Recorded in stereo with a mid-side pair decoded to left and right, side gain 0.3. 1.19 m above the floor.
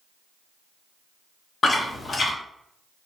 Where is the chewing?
50° left, 0.7 m.